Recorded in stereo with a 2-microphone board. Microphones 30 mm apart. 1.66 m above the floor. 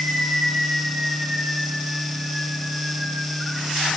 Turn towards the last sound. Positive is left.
No sound to turn to.